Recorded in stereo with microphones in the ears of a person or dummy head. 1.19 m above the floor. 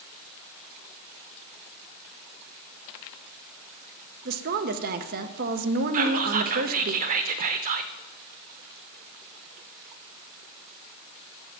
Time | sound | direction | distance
4.2 | a woman speaking | 50° right (ahead or behind) | 0.6 m
5.9 | whispering | 50° right (ahead or behind) | 0.6 m